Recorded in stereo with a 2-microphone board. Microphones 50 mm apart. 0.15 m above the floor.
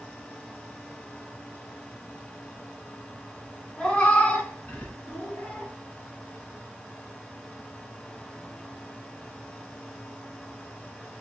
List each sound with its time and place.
3.8 s a cat meowing: 20° left (ahead or behind), 0.7 m; by 5.7 s 25° left (ahead or behind), 1.2 m